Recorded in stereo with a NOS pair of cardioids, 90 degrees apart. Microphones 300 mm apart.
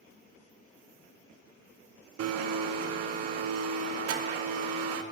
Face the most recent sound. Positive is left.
turn(degrees=-55)